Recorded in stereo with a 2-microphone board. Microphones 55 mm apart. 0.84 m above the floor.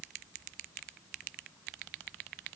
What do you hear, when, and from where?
Only background noise.